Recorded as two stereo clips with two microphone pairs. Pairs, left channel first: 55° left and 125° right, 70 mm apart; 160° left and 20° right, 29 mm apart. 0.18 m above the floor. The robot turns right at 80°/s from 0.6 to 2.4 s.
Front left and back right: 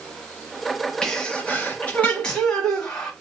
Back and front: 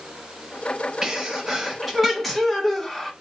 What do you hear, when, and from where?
1.0 s a sneeze: straight ahead, 1.0 m; by 3.1 s 115° left, 1.0 m